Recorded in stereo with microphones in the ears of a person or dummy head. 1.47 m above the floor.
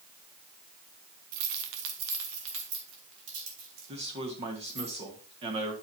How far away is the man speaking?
About 1.7 m.